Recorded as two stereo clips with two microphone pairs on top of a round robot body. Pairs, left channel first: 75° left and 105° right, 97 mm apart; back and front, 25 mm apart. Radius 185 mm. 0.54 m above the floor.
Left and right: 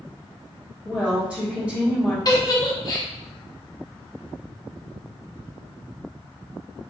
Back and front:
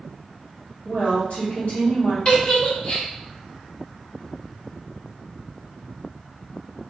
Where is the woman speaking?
175° left, 1.6 m.